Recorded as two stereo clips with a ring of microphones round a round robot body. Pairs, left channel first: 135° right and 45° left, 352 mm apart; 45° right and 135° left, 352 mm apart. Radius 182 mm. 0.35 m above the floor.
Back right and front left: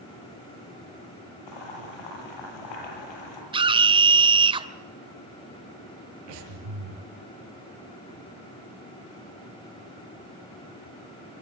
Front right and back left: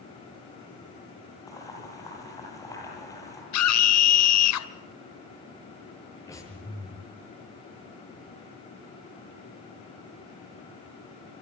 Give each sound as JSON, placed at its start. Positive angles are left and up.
{"t": 1.5, "sound": "boiling", "azimuth_deg": -125, "distance_m": 8.0}
{"t": 3.5, "sound": "a scream", "azimuth_deg": -25, "distance_m": 2.0}
{"t": 6.3, "sound": "breathing", "azimuth_deg": 35, "distance_m": 6.5}